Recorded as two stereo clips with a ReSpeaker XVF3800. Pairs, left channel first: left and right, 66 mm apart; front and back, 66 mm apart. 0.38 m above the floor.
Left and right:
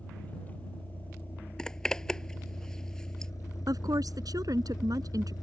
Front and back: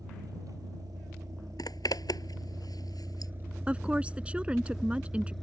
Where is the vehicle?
160° left; by 5.4 s 80° left.